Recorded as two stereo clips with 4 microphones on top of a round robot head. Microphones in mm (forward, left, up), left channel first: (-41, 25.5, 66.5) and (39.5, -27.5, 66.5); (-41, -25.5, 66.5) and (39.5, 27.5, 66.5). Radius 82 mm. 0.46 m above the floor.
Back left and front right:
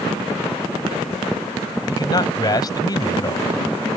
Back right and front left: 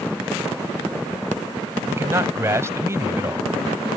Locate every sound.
1.9 s a man speaking: 95° left